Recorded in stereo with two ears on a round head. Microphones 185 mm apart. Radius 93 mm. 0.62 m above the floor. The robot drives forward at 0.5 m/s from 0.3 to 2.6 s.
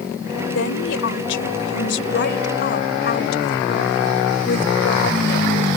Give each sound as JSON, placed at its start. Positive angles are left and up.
{"t": 0.5, "sound": "a woman speaking", "side_deg": 70}